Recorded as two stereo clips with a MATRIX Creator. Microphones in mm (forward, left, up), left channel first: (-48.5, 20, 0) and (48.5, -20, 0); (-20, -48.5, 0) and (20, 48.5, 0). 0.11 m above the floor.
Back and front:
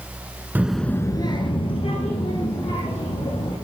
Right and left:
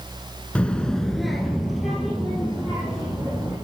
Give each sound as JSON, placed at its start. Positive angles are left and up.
{"t": 0.6, "sound": "a child speaking", "azimuth_deg": -55, "distance_m": 0.8}